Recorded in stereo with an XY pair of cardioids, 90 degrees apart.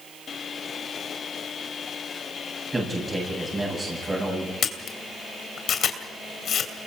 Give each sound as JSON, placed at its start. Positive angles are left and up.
{"t": 2.7, "sound": "a man speaking", "azimuth_deg": -25, "distance_m": 9.0}
{"t": 4.6, "sound": "a camera shutter", "azimuth_deg": 60, "distance_m": 2.5}